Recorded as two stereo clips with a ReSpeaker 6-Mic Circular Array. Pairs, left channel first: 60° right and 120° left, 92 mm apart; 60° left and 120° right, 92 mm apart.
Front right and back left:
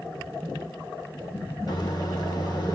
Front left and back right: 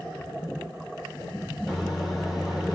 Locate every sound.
1.7 s a microwave: 30° right, 0.9 m